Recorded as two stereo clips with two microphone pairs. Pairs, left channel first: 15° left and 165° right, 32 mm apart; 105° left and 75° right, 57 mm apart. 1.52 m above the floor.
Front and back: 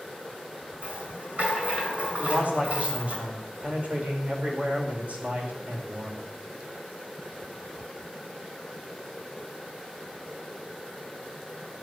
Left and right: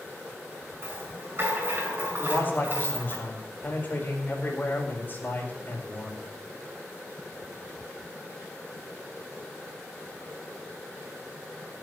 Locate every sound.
0.8 s a rattle: 125° right, 5.5 m
2.2 s a man speaking: 160° left, 4.5 m